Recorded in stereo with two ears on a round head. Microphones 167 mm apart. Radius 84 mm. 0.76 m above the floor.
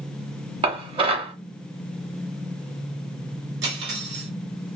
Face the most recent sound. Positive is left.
turn(degrees=-60)  # may be behind; listen again after turning